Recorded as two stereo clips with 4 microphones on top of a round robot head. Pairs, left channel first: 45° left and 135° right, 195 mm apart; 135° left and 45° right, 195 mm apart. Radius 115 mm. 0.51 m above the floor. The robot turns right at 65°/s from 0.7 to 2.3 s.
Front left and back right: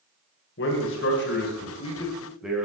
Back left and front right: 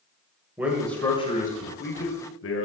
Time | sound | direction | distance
0.6 | a man speaking | 35° left | 2.5 m